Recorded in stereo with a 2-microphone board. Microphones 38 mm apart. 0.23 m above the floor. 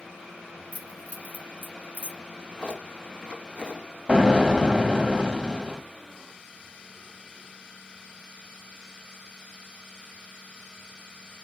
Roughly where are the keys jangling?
Right.